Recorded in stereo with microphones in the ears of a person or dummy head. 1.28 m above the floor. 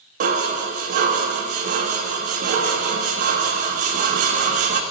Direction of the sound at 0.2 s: 50° right (ahead or behind).